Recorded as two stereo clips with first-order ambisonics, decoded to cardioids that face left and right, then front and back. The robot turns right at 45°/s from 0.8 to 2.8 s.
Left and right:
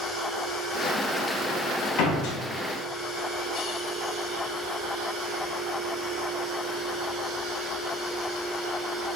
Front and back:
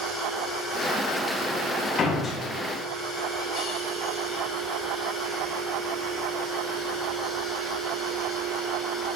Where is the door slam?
65° left, 1.6 m; by 2.4 s 80° left, 1.6 m.